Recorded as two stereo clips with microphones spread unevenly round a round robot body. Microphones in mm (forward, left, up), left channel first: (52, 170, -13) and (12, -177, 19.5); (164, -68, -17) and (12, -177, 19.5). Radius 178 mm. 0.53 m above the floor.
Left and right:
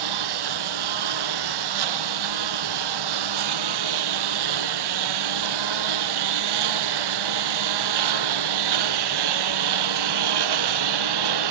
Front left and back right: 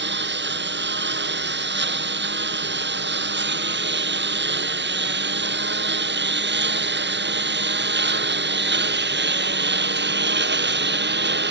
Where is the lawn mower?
125° right; by 11.5 s 120° right.